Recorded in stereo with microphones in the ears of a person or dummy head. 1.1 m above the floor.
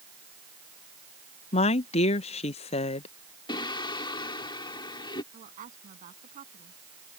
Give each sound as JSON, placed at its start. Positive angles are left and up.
{"t": 1.5, "sound": "a woman speaking", "side_deg": 30}
{"t": 3.5, "sound": "singing", "side_deg": 25}
{"t": 5.3, "sound": "a woman speaking", "side_deg": -40}